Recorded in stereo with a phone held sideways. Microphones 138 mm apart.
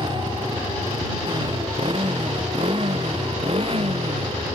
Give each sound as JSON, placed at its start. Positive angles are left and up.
{"t": 0.0, "sound": "a motorcycle", "side_deg": -35}